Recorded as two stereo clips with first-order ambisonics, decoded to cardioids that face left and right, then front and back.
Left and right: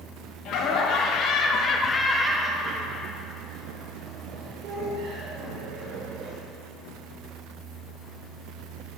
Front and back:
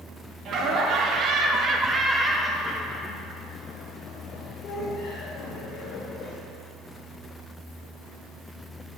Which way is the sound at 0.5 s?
130° left.